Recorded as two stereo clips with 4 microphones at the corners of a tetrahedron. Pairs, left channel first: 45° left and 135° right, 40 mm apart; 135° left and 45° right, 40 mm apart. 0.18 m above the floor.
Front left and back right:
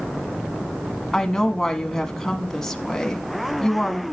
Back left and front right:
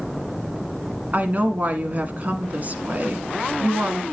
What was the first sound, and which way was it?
A woman speaking, 30° right.